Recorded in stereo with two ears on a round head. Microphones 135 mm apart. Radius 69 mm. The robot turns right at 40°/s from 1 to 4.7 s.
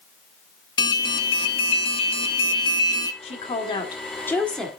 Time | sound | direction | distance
0.8 | an alarm | 50° left | 1.0 m
3.2 | a woman speaking | 120° left | 1.7 m